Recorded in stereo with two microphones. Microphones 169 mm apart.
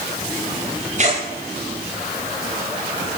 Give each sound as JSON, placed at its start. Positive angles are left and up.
{"t": 1.0, "sound": "tearing paper", "side_deg": -45, "distance_m": 10.0}